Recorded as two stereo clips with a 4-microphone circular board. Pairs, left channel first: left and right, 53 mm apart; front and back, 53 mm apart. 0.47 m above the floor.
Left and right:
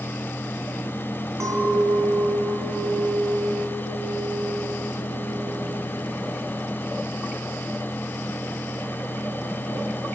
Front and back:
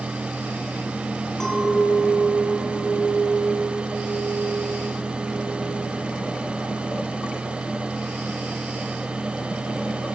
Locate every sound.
1.4 s a clink: 80° right, 2.5 m